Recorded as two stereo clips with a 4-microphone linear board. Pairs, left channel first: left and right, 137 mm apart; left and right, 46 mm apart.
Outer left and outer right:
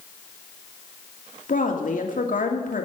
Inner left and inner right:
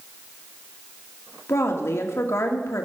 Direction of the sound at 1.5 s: 75° left (ahead or behind).